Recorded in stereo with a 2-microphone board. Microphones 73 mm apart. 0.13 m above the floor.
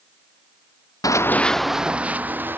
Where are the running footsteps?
55° left (ahead or behind); by 2.6 s 30° right (ahead or behind).